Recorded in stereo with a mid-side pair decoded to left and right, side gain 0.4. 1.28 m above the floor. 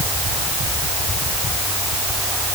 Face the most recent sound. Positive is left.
No sound to turn to.